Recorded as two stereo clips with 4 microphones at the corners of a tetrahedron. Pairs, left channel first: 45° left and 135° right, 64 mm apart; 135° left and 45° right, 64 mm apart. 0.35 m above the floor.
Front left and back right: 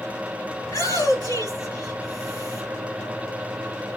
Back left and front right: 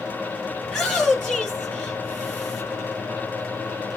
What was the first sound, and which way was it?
A shout, 45° left.